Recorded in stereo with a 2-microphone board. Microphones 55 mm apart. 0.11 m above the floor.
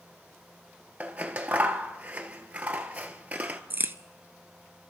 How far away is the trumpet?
No trumpet in this recording.